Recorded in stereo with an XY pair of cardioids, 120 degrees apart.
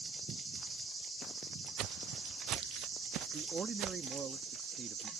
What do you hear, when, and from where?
1.8 s footsteps: 70° right
3.3 s a man speaking: 35° right